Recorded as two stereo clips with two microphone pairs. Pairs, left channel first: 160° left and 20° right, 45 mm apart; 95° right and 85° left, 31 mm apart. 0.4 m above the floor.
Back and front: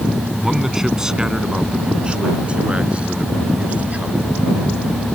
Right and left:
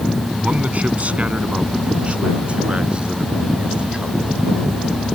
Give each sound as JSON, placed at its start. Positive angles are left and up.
{"t": 0.4, "sound": "a man speaking", "azimuth_deg": 60}